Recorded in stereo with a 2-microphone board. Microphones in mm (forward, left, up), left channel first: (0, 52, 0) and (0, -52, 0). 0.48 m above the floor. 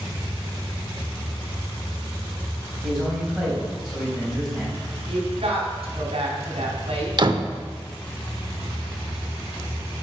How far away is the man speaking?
About 3.5 m.